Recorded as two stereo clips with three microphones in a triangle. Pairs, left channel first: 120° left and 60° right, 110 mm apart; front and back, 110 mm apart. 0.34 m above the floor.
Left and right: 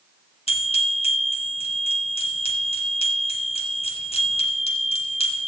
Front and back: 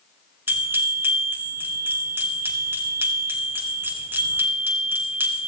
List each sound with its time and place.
0.5 s a bell: 110° left, 2 m